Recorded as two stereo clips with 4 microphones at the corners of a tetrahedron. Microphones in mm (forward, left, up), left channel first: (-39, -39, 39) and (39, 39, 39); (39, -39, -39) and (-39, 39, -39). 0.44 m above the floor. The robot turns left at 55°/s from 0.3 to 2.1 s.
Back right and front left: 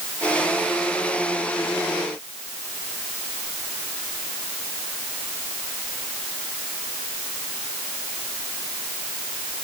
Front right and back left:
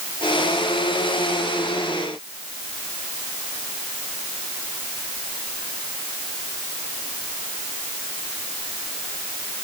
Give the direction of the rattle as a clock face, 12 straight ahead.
No rattle in this recording.